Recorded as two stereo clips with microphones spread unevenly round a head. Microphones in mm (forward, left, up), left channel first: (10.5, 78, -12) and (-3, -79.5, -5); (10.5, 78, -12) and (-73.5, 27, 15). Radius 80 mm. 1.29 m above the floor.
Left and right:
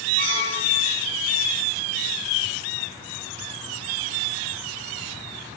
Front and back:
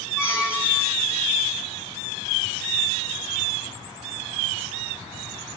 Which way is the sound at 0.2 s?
140° left.